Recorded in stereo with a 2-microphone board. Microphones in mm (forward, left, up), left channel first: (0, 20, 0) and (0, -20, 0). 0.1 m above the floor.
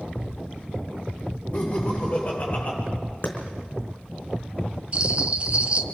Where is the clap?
55° left (ahead or behind), 4.5 m.